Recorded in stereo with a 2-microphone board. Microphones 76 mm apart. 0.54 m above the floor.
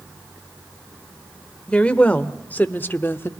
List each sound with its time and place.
1.7 s a woman speaking: 15° left (ahead or behind), 1.9 m; by 3.3 s 30° left (ahead or behind), 1.1 m